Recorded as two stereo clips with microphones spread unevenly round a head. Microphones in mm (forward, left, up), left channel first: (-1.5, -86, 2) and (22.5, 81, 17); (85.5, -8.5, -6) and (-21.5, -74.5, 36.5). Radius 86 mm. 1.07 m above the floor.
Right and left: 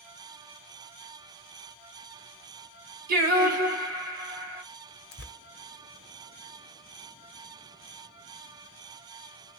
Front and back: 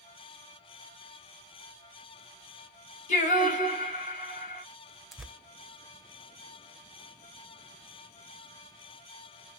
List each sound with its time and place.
3.1 s singing: 85° left, 1.1 m
5.1 s tearing paper: 70° right, 0.7 m